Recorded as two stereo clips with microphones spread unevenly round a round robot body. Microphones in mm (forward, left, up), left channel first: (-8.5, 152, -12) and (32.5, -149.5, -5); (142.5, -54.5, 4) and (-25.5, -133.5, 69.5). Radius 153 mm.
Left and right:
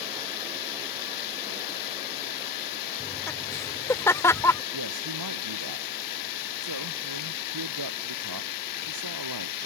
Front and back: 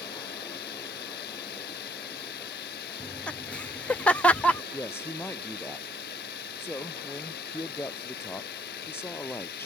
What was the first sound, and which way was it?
Running water, 75° left.